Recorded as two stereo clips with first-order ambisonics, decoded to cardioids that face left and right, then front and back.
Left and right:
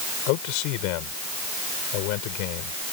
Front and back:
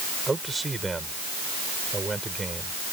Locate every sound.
0.3 s a man speaking: 100° left